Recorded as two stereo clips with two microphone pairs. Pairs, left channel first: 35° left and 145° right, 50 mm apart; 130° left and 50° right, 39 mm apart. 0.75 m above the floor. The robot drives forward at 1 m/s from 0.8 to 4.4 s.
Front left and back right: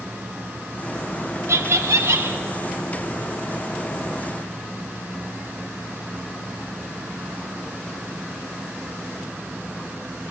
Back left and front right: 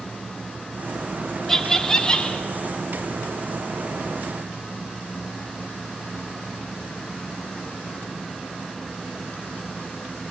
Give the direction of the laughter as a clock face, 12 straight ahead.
5 o'clock.